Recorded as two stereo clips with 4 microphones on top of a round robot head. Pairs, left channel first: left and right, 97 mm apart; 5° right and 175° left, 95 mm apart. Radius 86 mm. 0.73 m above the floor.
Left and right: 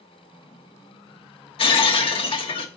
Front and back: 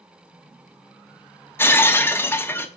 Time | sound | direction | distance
1.6 | breaking glass | 60° left | 0.8 m